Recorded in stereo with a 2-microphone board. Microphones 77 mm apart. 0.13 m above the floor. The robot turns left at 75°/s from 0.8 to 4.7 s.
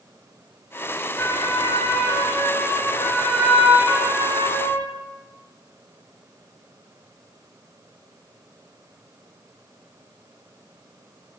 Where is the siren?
25° left (ahead or behind), 8 m; by 4.9 s 60° right (ahead or behind), 5 m.